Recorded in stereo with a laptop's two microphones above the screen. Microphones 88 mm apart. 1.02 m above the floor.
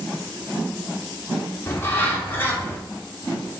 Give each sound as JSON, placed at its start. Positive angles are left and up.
{"t": 1.7, "sound": "a bird", "side_deg": 25, "distance_m": 1.8}